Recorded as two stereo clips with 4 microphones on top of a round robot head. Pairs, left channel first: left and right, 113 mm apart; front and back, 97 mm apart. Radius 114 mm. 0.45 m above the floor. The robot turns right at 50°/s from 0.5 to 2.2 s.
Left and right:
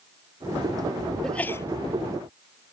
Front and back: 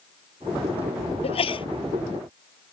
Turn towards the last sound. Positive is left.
turn(degrees=50)